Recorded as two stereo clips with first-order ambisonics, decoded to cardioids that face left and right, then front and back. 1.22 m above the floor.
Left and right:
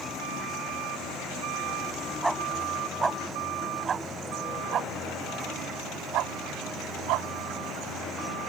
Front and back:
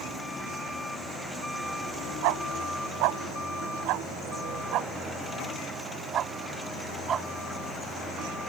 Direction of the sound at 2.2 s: 175° right.